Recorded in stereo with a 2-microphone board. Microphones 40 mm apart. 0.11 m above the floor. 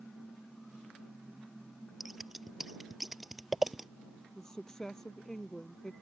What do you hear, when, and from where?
2.0 s scissors: 5° right (ahead or behind)
4.3 s a woman speaking: 15° left (ahead or behind)